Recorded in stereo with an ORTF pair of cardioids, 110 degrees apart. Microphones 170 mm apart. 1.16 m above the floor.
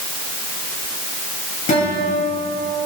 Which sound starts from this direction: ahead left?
A guitar, at 1.7 s.